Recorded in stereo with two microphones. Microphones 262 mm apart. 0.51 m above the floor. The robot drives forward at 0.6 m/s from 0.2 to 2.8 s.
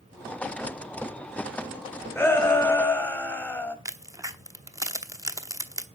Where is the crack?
10° right (ahead or behind), 1.1 m.